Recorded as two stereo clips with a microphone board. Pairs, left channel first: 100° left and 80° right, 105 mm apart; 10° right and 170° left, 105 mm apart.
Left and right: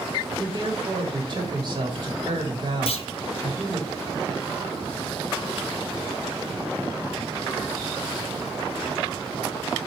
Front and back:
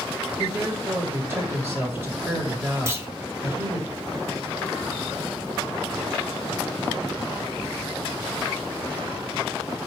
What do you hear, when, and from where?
0.4 s a woman speaking: 125° right, 1.5 m
2.9 s a clunk: 110° left, 0.6 m